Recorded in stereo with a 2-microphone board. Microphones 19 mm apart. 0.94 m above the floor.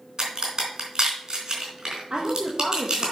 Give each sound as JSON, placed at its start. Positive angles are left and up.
{"t": 0.2, "sound": "a crack", "side_deg": -40, "distance_m": 4.0}
{"t": 2.1, "sound": "a woman speaking", "side_deg": -55, "distance_m": 1.3}